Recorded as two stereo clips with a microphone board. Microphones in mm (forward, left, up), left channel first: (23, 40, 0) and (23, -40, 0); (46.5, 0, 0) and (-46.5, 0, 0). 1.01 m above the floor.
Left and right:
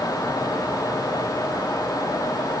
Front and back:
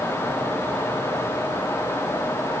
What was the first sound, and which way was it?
Only background noise.